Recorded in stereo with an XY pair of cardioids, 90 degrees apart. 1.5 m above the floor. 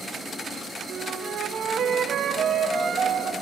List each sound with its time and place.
0.9 s a flute: 60° right, 1.1 m